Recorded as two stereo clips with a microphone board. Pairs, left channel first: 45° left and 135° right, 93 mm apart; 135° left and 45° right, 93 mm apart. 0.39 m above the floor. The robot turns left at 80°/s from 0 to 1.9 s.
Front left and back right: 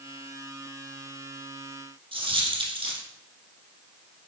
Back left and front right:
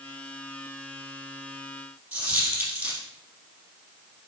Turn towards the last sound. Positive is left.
turn(degrees=-120)